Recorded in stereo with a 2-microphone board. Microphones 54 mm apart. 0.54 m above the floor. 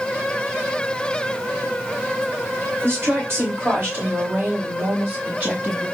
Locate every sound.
2.8 s a woman speaking: 55° right (ahead or behind), 1.8 m; by 5.8 s 35° right (ahead or behind), 3.5 m